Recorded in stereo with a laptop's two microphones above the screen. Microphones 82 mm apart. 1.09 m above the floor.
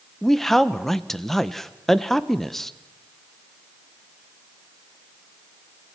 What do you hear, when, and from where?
0.2 s a man speaking: 5° left (ahead or behind), 0.9 m